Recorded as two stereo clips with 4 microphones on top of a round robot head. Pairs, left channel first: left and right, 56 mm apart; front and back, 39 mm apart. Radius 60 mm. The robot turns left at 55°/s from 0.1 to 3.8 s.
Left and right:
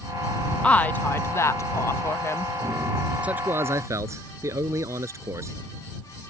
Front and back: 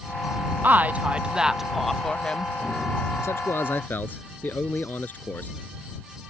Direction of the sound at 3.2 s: 20° right.